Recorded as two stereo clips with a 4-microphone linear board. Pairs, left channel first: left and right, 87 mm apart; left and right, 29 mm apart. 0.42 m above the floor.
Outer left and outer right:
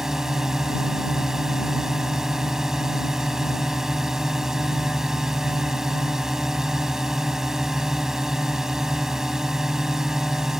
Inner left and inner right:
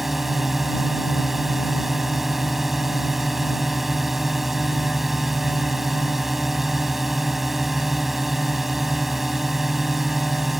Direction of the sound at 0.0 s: 5° right (ahead or behind).